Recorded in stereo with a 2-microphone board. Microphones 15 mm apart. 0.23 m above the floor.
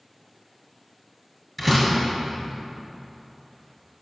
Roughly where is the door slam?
Centre.